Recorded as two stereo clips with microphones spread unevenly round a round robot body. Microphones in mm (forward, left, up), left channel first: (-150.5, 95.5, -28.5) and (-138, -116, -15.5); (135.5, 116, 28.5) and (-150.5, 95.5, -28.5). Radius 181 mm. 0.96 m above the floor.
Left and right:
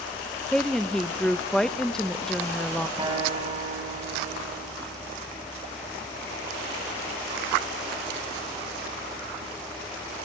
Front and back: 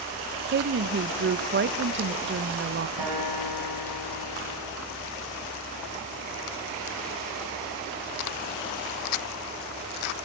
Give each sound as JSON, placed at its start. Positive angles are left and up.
{"t": 0.5, "sound": "a woman speaking", "azimuth_deg": 175, "distance_m": 0.6}
{"t": 3.0, "sound": "a guitar", "azimuth_deg": -155, "distance_m": 5.5}